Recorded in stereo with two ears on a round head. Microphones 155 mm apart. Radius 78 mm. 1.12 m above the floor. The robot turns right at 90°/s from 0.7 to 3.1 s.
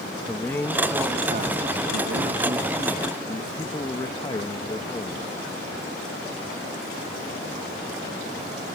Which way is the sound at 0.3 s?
165° left.